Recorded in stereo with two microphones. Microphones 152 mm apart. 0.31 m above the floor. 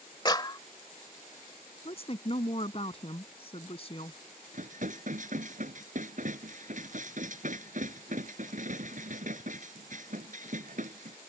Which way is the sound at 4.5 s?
60° right (ahead or behind).